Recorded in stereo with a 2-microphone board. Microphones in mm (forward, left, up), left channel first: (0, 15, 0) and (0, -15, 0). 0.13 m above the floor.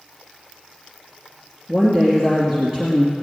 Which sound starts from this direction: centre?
A woman speaking, at 1.7 s.